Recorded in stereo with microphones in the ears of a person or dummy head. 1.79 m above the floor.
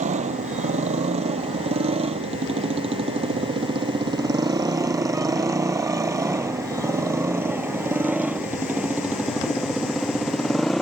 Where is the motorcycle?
40° right (ahead or behind); by 10.8 s centre (ahead or behind).